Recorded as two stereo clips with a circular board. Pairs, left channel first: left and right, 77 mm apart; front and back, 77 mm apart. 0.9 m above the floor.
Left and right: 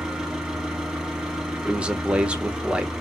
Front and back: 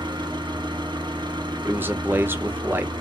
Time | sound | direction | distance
0.0 | an engine running | 170° right | 1.0 m
1.6 | a man speaking | 150° right | 0.7 m